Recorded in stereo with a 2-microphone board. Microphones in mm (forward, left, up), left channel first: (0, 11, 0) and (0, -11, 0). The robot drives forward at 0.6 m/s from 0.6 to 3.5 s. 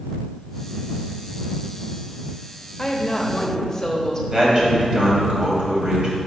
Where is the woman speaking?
30° left (ahead or behind), 1.0 m; by 4.2 s 25° left (ahead or behind), 1.3 m.